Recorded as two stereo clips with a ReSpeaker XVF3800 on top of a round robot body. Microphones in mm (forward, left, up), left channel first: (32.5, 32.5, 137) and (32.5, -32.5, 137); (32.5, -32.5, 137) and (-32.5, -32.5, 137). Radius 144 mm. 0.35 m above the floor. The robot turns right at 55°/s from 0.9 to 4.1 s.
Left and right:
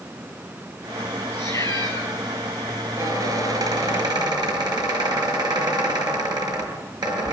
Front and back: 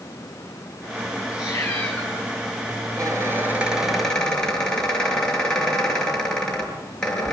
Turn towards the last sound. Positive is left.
turn(degrees=-80)